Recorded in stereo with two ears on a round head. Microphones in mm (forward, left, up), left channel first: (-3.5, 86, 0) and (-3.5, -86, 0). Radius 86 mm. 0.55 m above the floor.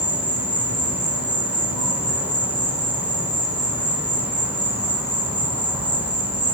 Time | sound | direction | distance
0.0 | an insect | 10° right (ahead or behind) | 4 m